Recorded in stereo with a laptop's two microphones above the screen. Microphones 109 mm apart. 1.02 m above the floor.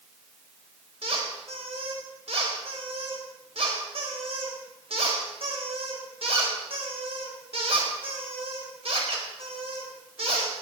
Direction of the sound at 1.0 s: 65° right (ahead or behind).